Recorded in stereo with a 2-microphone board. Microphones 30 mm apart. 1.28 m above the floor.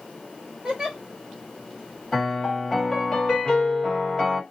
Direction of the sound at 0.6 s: 25° right (ahead or behind).